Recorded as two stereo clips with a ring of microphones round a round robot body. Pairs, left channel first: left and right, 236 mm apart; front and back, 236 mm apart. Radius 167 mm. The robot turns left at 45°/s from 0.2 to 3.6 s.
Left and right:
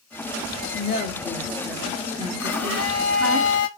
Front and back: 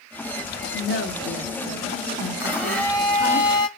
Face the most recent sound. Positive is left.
turn(degrees=50)